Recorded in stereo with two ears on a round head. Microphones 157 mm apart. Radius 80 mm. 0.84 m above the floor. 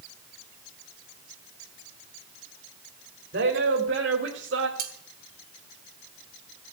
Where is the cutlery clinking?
50° right (ahead or behind), 3 m.